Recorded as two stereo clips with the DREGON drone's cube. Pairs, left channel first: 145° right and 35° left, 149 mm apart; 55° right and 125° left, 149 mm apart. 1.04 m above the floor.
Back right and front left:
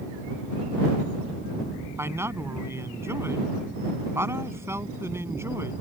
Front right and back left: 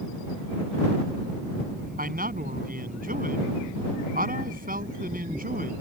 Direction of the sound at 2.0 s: 105° left.